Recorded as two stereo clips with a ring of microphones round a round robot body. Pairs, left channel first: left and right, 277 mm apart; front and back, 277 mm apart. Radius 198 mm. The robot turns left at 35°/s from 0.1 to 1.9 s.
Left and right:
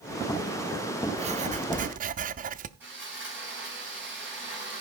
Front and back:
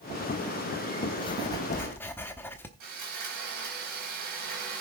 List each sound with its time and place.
1.2 s writing: 50° right, 0.5 m; by 2.7 s 75° right, 0.5 m
2.8 s sawing: 175° right, 4 m